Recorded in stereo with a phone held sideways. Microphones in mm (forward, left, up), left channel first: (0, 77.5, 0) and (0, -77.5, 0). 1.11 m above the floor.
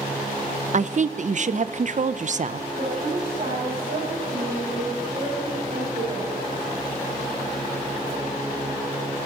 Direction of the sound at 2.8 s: 75° right (ahead or behind).